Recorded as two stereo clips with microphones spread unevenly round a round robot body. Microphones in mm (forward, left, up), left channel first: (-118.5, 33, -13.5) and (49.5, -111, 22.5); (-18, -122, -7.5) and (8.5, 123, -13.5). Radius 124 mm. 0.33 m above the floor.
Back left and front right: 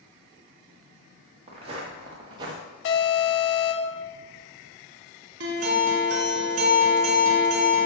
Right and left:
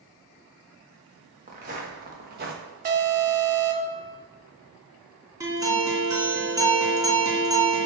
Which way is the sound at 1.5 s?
25° left.